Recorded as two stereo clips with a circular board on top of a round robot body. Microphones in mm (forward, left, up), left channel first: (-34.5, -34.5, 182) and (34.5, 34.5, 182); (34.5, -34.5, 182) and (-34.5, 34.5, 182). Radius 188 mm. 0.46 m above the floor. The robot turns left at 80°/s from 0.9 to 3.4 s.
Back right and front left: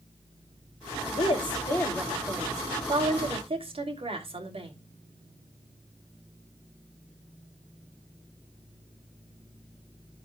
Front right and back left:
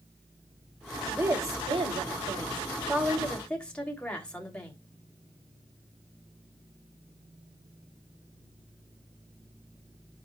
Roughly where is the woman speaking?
Behind right.